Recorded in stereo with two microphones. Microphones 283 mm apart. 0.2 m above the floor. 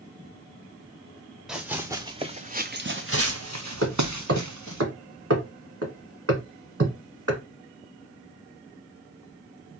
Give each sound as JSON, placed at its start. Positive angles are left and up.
{"t": 1.5, "sound": "running footsteps", "side_deg": 0, "distance_m": 1.1}
{"t": 3.8, "sound": "hammering", "side_deg": -55, "distance_m": 1.2}